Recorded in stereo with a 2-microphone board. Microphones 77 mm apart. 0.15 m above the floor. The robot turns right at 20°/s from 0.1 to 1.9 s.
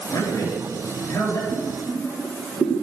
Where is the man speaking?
55° left (ahead or behind), 3.5 m; by 1.4 s 35° left (ahead or behind), 3.5 m.